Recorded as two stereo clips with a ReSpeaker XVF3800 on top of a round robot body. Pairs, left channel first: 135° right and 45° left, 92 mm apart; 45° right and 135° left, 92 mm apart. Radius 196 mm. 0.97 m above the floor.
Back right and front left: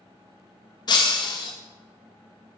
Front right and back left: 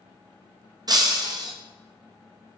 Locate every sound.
0.9 s breaking glass: 175° right, 0.7 m